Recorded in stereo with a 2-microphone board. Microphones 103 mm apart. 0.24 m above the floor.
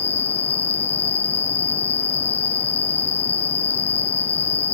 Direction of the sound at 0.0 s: 15° left (ahead or behind).